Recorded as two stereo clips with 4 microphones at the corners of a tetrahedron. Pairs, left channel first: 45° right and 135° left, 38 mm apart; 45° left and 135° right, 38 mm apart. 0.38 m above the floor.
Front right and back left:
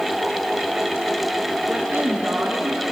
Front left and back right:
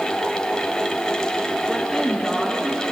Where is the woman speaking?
135° left, 4 m.